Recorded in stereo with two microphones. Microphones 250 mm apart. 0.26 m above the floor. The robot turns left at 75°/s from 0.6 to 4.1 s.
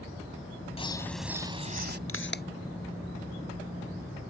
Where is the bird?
30° left; by 2.0 s 60° right.